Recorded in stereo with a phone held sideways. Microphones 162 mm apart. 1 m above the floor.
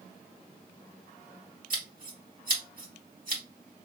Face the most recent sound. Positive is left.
turn(degrees=-60)  # may be behind; listen again after turning